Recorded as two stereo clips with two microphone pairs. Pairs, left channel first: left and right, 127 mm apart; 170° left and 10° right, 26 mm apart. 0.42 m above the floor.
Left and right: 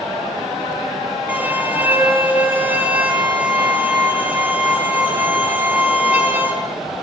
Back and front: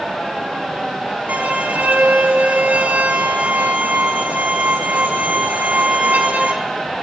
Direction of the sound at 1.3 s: 15° right.